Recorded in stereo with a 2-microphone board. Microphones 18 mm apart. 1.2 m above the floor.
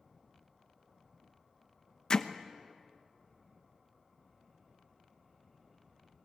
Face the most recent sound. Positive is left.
turn(degrees=35)  # may be behind; listen again after turning